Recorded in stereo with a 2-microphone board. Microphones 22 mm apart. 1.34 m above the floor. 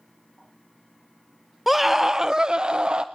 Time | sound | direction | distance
1.7 | a scream | 10° right (ahead or behind) | 0.6 m